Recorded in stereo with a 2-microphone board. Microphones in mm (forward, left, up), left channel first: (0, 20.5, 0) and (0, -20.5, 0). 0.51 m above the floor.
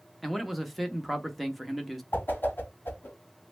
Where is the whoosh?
50° left (ahead or behind), 1.5 m.